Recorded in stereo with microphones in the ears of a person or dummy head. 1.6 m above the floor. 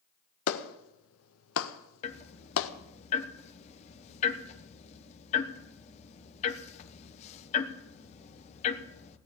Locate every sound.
0.5 s a clap: 70° left (ahead or behind), 1.2 m
2.0 s ticking: 30° left (ahead or behind), 1.1 m